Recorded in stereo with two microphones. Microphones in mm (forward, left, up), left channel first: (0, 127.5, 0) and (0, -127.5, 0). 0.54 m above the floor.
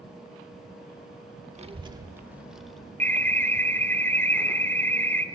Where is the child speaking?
25° right (ahead or behind), 0.9 m; by 2.9 s 5° left (ahead or behind), 1.4 m.